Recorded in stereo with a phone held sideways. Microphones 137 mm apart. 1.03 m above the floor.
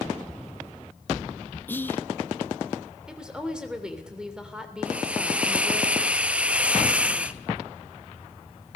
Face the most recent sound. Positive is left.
turn(degrees=-10)  # may be behind; listen again after turning